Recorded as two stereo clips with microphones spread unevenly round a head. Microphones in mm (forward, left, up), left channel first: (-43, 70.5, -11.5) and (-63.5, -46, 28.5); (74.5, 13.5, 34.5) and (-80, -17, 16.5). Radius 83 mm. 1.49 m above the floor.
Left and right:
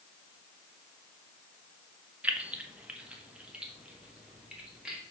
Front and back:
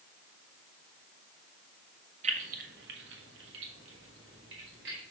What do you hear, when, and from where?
2.2 s keys jangling: 135° right, 0.7 m; by 5.0 s straight behind, 2.5 m